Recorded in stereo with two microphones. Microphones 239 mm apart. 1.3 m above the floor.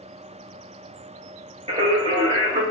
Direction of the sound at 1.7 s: 25° right (ahead or behind).